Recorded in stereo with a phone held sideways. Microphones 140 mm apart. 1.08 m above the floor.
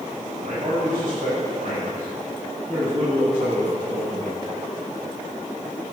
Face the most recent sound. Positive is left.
turn(degrees=-55)  # may be behind; listen again after turning